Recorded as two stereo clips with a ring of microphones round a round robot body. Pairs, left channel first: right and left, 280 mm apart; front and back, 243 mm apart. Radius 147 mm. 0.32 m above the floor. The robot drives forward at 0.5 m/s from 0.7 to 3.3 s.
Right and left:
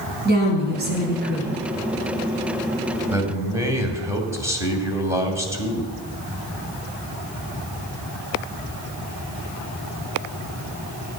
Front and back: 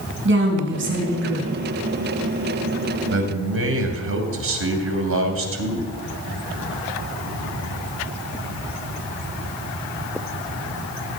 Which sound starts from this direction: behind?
A man speaking, at 3.1 s.